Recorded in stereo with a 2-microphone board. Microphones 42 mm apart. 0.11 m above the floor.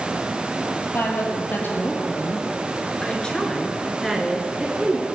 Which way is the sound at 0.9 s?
55° left (ahead or behind).